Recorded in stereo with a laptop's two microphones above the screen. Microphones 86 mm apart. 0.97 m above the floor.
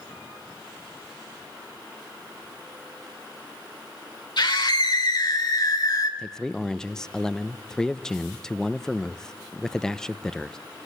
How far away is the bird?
No bird in this recording.